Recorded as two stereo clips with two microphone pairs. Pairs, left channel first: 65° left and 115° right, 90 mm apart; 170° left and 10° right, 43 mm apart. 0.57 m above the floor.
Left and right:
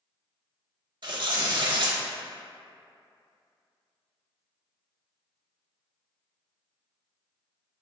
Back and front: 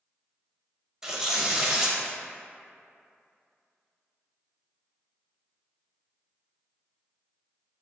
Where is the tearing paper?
85° right, 0.6 m.